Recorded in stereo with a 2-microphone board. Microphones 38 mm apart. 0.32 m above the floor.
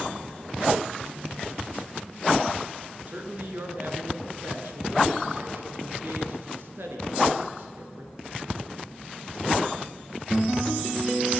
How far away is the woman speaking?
About 5 m.